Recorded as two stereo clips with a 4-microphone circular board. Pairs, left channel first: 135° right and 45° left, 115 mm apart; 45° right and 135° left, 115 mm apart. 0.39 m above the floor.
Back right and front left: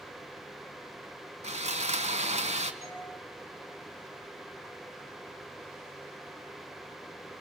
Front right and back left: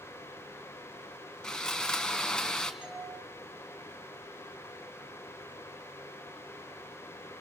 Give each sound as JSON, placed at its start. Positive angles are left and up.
{"t": 1.4, "sound": "sawing", "azimuth_deg": 40, "distance_m": 1.7}
{"t": 2.8, "sound": "a doorbell", "azimuth_deg": -145, "distance_m": 7.0}